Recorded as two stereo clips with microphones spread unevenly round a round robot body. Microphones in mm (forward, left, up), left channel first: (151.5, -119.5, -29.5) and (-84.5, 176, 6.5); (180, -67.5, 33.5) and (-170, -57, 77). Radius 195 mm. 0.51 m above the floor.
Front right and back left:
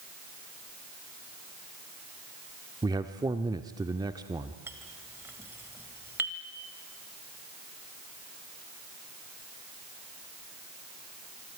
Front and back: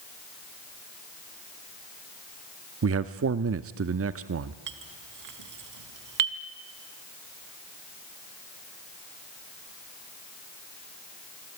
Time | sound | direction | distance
2.8 | a man speaking | 150° right | 0.8 m
4.7 | a clink | 145° right | 1.8 m